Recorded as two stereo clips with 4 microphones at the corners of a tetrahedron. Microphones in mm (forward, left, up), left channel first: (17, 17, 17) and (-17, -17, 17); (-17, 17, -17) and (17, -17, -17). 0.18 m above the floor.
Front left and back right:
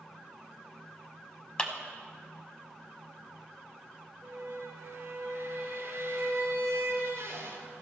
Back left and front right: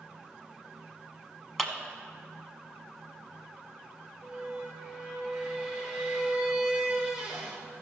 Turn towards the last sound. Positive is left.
turn(degrees=-105)